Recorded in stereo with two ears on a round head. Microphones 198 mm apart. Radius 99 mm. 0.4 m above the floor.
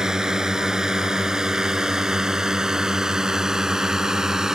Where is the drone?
5° right (ahead or behind).